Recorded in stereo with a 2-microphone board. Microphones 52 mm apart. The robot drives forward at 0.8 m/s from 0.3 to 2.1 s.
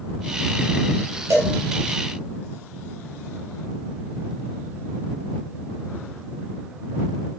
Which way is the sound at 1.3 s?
60° right (ahead or behind).